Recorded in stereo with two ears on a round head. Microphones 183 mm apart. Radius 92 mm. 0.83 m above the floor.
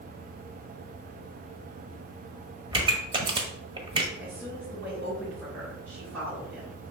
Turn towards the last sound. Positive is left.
turn(degrees=-10)  # may be behind; listen again after turning